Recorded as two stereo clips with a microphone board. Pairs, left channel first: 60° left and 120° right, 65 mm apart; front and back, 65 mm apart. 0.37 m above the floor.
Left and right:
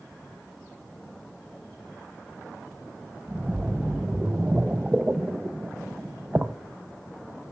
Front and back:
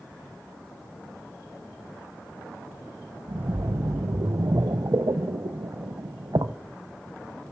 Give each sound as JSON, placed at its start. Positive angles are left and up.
{"t": 3.3, "sound": "a splash", "azimuth_deg": 170, "distance_m": 0.7}